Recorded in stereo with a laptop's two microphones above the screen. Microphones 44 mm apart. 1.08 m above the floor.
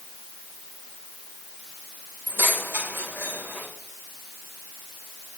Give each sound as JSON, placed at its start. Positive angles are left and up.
{"t": 2.3, "sound": "keys jangling", "side_deg": -55, "distance_m": 3.5}